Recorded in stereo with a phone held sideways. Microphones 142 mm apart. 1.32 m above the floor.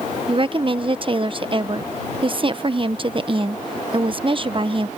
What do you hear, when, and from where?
0.3 s a woman speaking: 40° right (ahead or behind)